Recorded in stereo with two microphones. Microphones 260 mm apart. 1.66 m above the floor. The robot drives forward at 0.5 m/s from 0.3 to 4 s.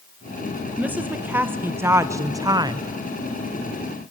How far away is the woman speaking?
About 1.4 m.